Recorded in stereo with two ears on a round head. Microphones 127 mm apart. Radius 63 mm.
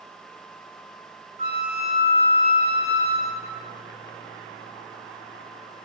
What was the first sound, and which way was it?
A flute, 45° right (ahead or behind).